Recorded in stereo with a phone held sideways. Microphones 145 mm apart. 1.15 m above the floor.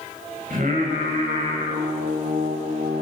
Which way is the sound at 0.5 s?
70° right (ahead or behind).